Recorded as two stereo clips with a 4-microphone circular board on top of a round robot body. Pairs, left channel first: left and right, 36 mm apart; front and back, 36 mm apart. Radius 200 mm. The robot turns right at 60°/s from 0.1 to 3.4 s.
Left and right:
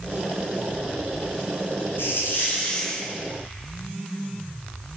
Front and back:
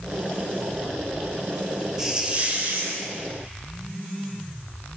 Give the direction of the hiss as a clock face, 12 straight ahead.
9 o'clock.